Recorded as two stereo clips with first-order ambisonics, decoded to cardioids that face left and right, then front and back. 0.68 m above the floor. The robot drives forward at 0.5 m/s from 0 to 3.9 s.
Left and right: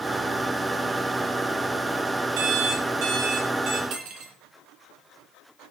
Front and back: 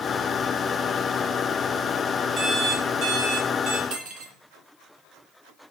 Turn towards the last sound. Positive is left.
turn(degrees=-130)